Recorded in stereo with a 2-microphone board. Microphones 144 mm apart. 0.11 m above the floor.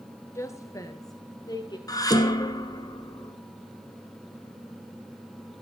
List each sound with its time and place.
0.3 s a woman speaking: 20° left (ahead or behind), 1.5 m; by 1.8 s 30° left (ahead or behind), 2.5 m
1.9 s dishes clattering: 25° left (ahead or behind), 1.0 m